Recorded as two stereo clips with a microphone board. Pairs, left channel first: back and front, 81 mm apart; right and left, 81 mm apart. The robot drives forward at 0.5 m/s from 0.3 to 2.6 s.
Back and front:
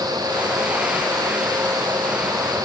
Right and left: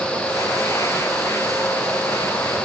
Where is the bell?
No bell in this recording.